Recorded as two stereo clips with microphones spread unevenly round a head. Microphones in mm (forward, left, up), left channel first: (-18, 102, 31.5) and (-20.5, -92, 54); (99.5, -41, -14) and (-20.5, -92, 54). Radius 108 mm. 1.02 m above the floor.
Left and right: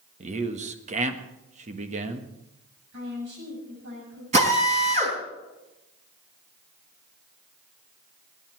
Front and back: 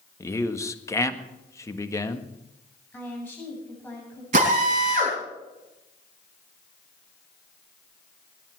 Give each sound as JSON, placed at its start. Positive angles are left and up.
{"t": 0.2, "sound": "a man speaking", "azimuth_deg": -35, "distance_m": 1.5}
{"t": 2.9, "sound": "a woman speaking", "azimuth_deg": -55, "distance_m": 7.0}
{"t": 4.3, "sound": "a drill", "azimuth_deg": -145, "distance_m": 4.5}